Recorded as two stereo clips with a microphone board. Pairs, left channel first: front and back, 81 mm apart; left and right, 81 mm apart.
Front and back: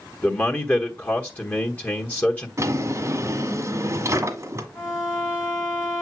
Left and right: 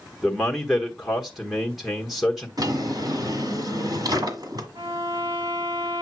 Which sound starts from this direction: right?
A violin, at 4.8 s.